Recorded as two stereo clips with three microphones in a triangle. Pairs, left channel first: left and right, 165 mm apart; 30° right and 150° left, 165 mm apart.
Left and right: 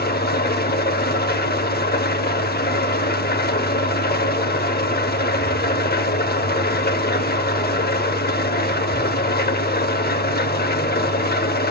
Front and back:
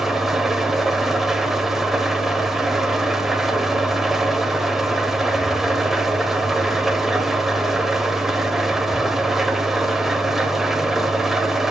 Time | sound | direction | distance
0.0 | an engine running | 60° left | 0.7 m